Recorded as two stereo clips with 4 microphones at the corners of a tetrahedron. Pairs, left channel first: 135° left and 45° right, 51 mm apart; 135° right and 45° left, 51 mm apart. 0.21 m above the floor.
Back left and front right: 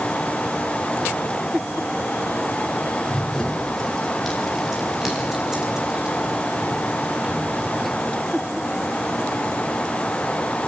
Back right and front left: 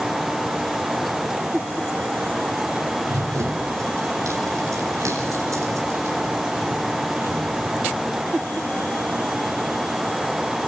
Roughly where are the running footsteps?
Ahead left.